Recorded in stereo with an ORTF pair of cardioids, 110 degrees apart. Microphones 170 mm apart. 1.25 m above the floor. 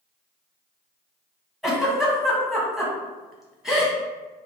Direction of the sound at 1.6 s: Straight ahead.